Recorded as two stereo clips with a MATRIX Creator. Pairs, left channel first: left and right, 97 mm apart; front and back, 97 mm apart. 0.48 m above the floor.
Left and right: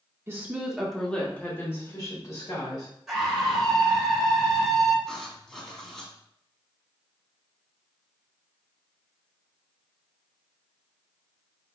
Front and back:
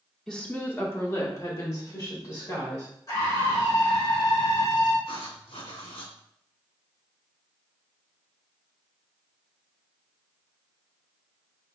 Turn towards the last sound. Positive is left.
turn(degrees=5)